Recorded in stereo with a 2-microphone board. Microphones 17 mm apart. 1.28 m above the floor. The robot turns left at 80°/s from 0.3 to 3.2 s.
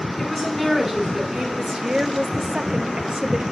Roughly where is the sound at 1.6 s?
Ahead.